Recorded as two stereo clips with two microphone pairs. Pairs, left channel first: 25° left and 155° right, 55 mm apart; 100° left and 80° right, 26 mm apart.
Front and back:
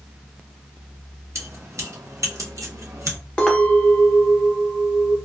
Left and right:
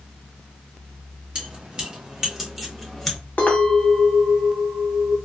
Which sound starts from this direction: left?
A clink, at 3.4 s.